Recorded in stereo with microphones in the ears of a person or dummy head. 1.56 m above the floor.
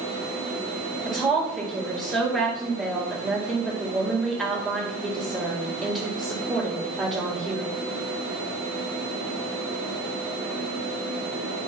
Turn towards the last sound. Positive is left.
turn(degrees=-5)  # may be behind; listen again after turning